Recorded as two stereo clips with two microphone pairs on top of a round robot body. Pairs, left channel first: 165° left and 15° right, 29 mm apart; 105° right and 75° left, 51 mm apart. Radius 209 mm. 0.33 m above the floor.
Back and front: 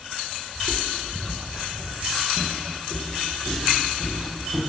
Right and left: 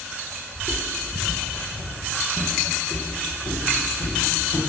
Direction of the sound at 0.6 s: 5° left.